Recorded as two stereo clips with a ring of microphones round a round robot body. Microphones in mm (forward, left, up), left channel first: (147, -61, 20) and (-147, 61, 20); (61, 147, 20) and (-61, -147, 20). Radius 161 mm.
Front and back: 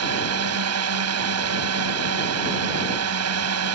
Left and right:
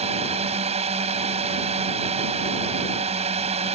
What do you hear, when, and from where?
0.0 s a drone: straight behind